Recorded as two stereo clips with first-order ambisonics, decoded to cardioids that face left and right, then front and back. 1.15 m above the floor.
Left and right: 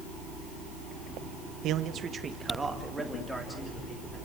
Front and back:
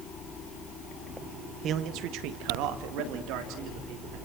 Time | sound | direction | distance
1.6 | a man speaking | 125° right | 1.2 m